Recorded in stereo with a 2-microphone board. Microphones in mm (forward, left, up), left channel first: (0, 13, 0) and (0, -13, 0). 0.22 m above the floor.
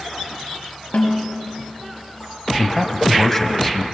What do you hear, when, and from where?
0.9 s a snare drum: 55° left (ahead or behind), 5.5 m
2.6 s a man speaking: 10° left (ahead or behind), 1.6 m